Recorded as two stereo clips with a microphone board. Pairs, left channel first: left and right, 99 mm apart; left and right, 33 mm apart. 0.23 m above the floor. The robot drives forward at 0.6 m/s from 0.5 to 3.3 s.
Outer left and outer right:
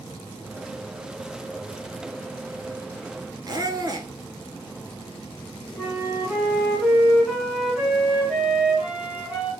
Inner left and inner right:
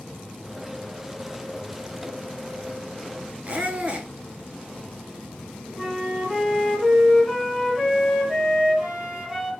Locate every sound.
3.5 s a squeak: 40° right (ahead or behind), 0.6 m
5.8 s a flute: 5° right (ahead or behind), 1.3 m